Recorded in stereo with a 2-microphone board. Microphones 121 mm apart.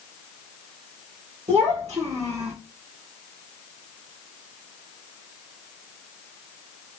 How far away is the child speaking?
About 2.5 m.